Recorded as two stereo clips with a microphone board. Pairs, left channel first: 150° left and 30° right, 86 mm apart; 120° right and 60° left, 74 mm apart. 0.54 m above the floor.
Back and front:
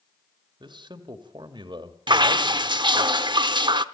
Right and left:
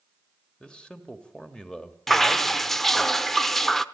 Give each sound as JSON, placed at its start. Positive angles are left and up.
{"t": 0.6, "sound": "a man speaking", "azimuth_deg": -40, "distance_m": 2.0}
{"t": 2.1, "sound": "dripping", "azimuth_deg": -35, "distance_m": 0.7}